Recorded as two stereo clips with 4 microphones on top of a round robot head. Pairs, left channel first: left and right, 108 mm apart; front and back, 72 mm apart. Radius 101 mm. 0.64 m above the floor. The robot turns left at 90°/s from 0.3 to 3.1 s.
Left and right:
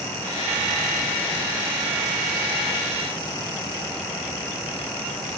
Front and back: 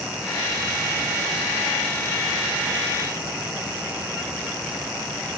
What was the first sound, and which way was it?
Only background noise.